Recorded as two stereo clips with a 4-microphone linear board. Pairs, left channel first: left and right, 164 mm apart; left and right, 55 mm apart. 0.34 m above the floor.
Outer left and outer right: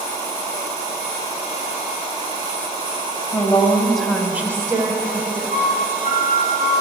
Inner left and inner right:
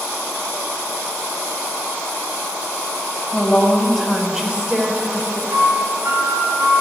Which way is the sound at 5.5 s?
50° right (ahead or behind).